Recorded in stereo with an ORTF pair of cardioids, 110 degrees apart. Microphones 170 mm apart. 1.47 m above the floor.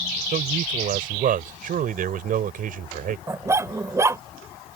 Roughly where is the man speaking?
Ahead right.